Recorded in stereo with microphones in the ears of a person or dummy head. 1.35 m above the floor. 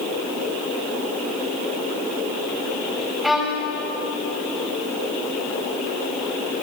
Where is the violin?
5° right (ahead or behind), 5.5 m.